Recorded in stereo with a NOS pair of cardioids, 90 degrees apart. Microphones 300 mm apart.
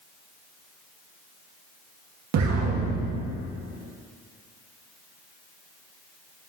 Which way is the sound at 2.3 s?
65° right.